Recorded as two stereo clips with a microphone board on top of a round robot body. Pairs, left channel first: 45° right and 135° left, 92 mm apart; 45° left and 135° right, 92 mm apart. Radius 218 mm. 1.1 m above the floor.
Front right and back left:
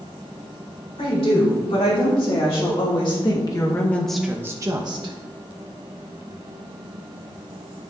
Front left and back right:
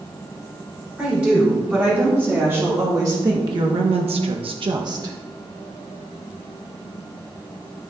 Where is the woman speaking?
60° right, 4 m; by 5.2 s 170° left, 1.5 m.